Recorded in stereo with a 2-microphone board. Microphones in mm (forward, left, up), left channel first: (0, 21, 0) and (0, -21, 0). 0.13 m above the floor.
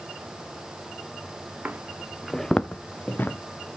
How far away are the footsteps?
About 1.0 m.